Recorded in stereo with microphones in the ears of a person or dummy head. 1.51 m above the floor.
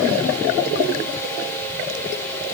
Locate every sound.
Only background noise.